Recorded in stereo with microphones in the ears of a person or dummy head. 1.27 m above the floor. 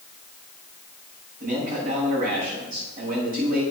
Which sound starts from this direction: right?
A man speaking, at 1.4 s.